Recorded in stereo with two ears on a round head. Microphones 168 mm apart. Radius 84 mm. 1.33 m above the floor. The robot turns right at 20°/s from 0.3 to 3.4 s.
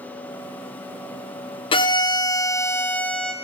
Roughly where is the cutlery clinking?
I don't hear cutlery clinking.